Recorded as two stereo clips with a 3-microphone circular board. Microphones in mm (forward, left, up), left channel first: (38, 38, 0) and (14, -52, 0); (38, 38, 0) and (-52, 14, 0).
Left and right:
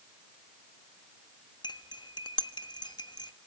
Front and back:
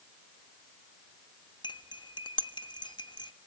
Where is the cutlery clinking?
45° left, 1.3 m.